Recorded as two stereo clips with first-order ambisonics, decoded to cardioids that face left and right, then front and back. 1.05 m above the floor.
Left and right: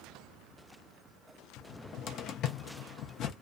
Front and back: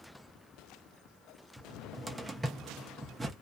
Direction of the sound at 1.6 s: 105° left.